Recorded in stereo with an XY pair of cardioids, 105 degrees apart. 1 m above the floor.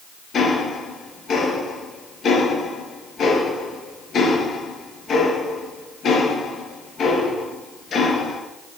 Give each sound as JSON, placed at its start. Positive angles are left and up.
{"t": 0.3, "sound": "ticking", "azimuth_deg": 55, "distance_m": 4.0}